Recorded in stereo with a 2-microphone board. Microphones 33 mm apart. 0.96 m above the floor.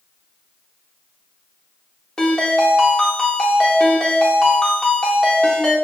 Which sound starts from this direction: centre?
A ringtone, at 2.2 s.